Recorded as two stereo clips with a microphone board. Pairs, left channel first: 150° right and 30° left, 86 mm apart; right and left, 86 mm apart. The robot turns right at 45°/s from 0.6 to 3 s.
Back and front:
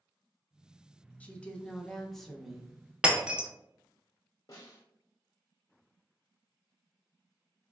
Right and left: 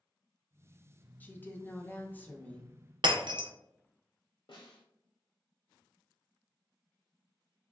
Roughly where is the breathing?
I don't hear breathing.